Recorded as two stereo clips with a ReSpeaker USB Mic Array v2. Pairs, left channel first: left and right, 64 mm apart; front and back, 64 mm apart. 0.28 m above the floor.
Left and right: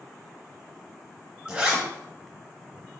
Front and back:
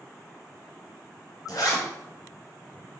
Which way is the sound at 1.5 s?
20° right.